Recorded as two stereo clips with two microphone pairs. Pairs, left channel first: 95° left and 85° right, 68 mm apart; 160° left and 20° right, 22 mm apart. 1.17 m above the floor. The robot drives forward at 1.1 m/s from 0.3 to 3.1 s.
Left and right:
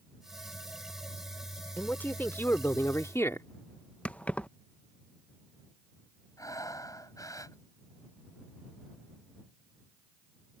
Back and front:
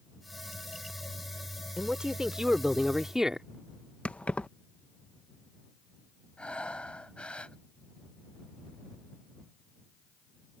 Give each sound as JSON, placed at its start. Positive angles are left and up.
{"t": 1.8, "sound": "a man speaking", "azimuth_deg": 30}
{"t": 4.0, "sound": "keys jangling", "azimuth_deg": 165}
{"t": 6.4, "sound": "breathing", "azimuth_deg": 130}